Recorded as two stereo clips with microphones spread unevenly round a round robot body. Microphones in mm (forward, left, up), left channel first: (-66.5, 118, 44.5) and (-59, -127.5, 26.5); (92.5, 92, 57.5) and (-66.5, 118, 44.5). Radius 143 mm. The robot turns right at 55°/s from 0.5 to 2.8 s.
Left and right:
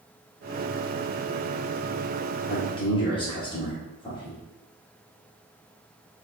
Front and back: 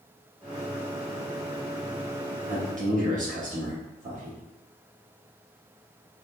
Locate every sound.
2.5 s a man speaking: 145° left, 1.6 m; by 4.4 s 160° left, 1.6 m